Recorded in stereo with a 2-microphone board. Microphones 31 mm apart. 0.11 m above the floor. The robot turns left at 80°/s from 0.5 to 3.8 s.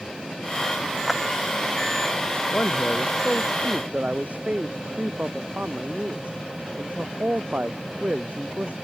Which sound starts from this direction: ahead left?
A man speaking, at 2.5 s.